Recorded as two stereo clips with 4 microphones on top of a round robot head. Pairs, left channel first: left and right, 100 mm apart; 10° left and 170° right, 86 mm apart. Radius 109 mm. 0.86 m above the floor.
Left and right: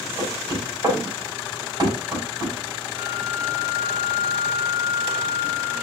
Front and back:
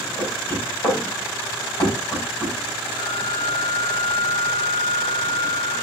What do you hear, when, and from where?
0.2 s knocking: 40° right, 6 m
3.0 s a flute: 40° right, 5.5 m